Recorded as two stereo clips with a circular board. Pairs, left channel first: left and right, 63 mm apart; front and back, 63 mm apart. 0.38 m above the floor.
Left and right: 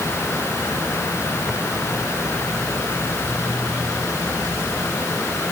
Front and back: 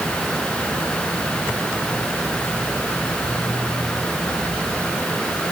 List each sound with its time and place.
Only background noise.